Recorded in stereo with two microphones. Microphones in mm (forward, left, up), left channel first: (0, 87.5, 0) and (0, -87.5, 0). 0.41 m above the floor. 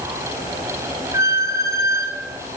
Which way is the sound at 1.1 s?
15° right (ahead or behind).